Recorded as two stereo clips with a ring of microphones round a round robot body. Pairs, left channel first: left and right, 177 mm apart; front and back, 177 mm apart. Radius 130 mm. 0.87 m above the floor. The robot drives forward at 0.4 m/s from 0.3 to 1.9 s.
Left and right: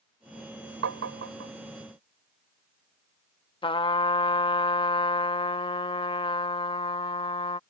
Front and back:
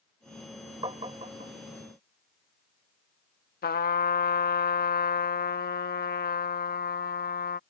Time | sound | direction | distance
0.8 | tapping | 105° right | ?
3.6 | a trumpet | 30° left | ?